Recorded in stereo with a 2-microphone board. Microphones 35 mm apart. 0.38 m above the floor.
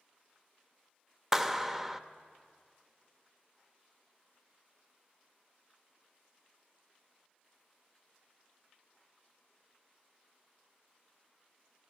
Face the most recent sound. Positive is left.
turn(degrees=-10)  # may be behind; listen again after turning